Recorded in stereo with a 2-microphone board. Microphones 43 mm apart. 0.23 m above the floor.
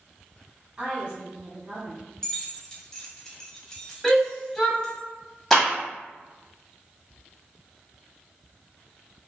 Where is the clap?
10° left (ahead or behind), 1.2 m.